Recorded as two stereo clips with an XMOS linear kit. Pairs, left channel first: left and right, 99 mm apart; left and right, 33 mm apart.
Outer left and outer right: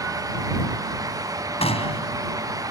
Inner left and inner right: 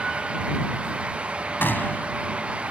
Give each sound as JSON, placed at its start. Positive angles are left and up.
{"t": 1.6, "sound": "a gunshot", "side_deg": 85}